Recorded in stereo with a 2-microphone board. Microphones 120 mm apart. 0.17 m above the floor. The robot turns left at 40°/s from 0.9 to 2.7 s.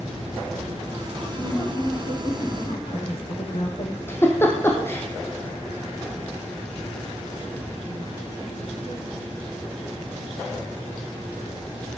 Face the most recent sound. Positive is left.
turn(degrees=20)  # may be behind; listen again after turning